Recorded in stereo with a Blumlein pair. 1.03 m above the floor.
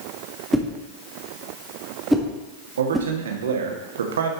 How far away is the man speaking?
About 1.6 m.